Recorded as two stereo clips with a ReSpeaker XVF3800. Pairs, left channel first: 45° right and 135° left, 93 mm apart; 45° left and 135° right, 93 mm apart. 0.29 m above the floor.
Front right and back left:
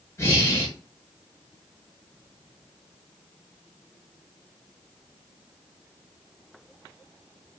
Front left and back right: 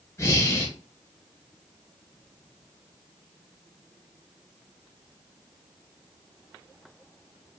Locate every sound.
0.2 s breathing: straight ahead, 1.1 m